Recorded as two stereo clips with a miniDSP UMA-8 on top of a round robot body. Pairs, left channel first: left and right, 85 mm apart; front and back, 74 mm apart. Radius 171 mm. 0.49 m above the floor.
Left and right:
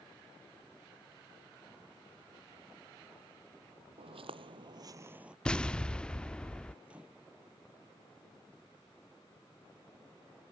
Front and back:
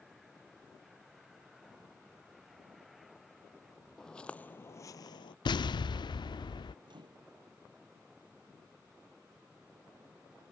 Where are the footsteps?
85° right; by 5.3 s 10° right.